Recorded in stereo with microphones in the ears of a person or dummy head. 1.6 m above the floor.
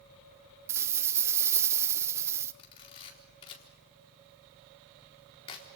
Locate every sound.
0.7 s a rattle: 15° right (ahead or behind), 0.8 m
2.6 s a camera shutter: 30° left (ahead or behind), 4 m